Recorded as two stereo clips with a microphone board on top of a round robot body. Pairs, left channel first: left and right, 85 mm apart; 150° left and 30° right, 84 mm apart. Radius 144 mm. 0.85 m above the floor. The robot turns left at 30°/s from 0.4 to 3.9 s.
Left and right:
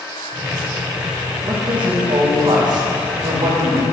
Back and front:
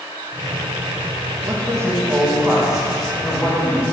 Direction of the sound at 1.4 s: 75° right.